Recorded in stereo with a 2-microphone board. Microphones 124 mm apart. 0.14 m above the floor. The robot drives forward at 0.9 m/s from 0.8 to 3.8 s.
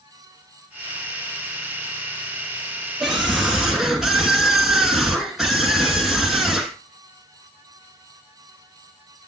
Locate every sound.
3.0 s a scream: centre (ahead or behind), 2 m; by 6.8 s 5° right (ahead or behind), 1.7 m